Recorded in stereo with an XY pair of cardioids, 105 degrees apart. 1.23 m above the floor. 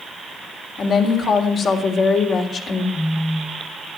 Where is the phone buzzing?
35° left, 3.5 m.